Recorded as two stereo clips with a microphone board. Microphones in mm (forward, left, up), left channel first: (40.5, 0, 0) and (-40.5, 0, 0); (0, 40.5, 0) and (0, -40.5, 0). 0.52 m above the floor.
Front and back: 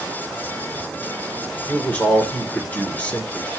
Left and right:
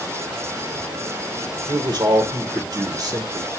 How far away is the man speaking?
About 1.6 m.